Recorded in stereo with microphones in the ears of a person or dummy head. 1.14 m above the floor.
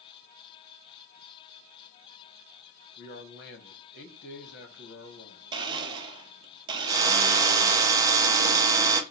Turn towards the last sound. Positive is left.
turn(degrees=-20)  # may be behind; listen again after turning